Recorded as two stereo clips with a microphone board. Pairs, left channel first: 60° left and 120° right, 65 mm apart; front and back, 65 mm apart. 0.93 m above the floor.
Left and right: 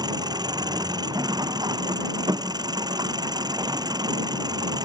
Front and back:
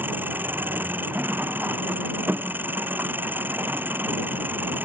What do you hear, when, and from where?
0.0 s an engine running: 120° right